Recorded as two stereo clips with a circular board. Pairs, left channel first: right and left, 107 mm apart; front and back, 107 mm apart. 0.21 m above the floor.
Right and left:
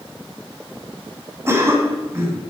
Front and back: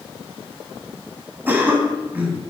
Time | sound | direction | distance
1.5 | a cough | 125° left | 1.5 m